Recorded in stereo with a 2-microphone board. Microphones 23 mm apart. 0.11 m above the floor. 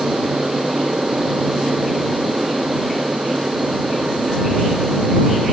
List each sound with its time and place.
0.0 s an aircraft: 70° right (ahead or behind); by 5.5 s 65° right (ahead or behind)